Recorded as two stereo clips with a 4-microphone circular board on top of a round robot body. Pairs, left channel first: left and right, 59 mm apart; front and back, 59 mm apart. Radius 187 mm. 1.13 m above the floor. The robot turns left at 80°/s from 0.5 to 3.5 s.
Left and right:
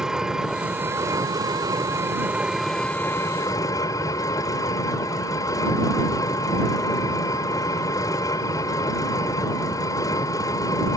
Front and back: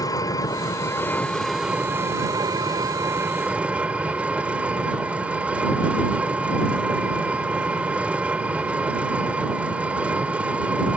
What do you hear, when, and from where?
0.0 s an engine running: 10° right; by 11.0 s 110° left